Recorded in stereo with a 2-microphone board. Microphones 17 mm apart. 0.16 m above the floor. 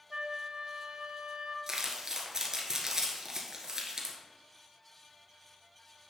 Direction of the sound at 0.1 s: 55° right (ahead or behind).